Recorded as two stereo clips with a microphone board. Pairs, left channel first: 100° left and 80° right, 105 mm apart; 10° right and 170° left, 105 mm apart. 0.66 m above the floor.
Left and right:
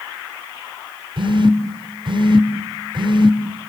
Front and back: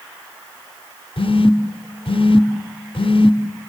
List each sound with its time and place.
1.2 s a phone buzzing: 40° right, 0.9 m